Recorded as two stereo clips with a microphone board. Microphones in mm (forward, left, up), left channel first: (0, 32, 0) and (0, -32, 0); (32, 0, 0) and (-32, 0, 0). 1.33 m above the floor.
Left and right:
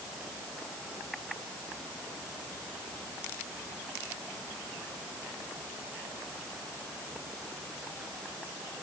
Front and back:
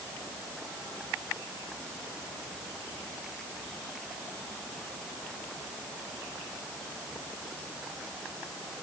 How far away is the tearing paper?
I don't hear tearing paper.